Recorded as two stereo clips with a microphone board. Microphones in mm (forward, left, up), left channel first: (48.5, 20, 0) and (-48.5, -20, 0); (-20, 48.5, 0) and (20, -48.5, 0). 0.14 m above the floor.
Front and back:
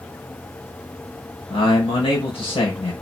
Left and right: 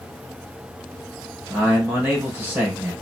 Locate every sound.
1.5 s a man speaking: straight ahead, 3 m